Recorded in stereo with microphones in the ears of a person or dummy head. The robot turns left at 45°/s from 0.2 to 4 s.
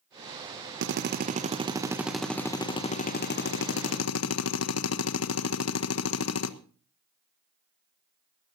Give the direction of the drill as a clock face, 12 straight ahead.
4 o'clock.